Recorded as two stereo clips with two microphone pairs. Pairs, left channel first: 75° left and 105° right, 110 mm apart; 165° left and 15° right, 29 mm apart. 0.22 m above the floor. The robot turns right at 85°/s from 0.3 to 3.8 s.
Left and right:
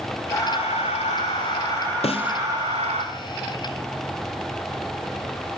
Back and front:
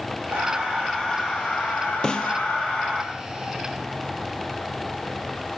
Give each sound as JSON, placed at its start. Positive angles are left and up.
{"t": 0.3, "sound": "breathing", "azimuth_deg": 15, "distance_m": 6.0}
{"t": 2.0, "sound": "a snare drum", "azimuth_deg": 95, "distance_m": 1.3}